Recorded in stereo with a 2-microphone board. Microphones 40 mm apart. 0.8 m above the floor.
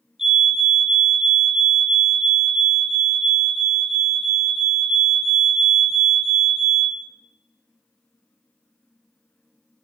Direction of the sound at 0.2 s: 5° right (ahead or behind).